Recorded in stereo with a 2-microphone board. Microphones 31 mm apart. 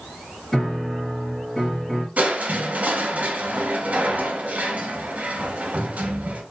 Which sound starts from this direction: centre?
A piano, at 0.5 s.